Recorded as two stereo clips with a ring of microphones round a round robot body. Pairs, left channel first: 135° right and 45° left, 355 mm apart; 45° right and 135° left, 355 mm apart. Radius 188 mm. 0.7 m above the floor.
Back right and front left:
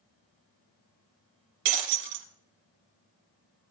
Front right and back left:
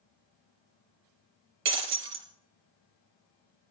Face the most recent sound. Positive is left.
turn(degrees=80)